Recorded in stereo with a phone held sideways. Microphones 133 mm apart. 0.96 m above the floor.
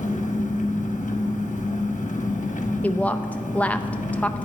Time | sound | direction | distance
0.0 | an engine running | 65° left (ahead or behind) | 1.0 m
2.8 | a woman speaking | 10° left (ahead or behind) | 0.6 m